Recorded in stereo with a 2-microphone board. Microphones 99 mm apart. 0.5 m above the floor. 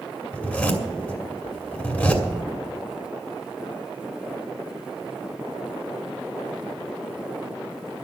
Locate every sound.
0.3 s a zipper: 15° left (ahead or behind), 2 m